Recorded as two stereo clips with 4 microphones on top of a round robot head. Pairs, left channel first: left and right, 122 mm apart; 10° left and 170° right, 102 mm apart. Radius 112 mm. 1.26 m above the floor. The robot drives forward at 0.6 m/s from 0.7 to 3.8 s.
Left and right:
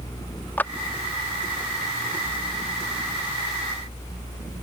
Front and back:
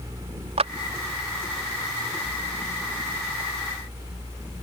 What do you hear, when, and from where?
0.6 s a clap: 165° left